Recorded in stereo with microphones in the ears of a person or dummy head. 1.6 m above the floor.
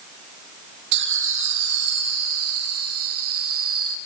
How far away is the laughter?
About 1.2 m.